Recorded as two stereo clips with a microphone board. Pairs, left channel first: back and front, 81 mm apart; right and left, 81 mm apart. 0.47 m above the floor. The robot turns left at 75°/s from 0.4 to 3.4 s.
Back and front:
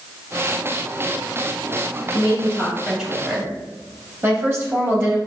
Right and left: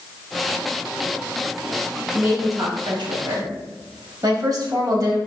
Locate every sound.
2.1 s a woman speaking: 150° left, 3 m; by 5.2 s 55° left, 3 m